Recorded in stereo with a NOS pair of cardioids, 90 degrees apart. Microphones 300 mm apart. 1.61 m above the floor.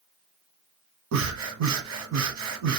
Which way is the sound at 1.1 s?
60° right.